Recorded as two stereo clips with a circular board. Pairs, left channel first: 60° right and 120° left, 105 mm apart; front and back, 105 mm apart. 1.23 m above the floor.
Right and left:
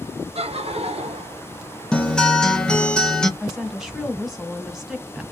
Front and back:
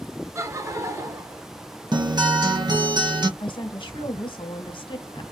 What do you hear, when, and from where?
0.3 s laughter: 120° left, 0.7 m
1.9 s a guitar: 140° right, 0.5 m
3.4 s a woman speaking: 35° left, 1.0 m